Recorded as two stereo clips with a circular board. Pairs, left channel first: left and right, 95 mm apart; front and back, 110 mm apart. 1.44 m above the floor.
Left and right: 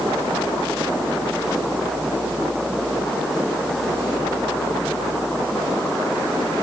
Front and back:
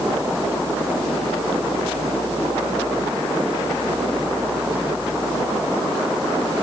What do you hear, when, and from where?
Only background noise.